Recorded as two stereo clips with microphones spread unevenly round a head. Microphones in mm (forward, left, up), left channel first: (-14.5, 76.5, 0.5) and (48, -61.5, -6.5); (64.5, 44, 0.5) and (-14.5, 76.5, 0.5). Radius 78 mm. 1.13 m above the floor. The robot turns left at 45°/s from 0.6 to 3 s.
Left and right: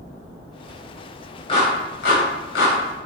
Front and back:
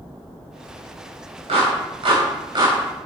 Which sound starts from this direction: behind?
A clap, at 1.5 s.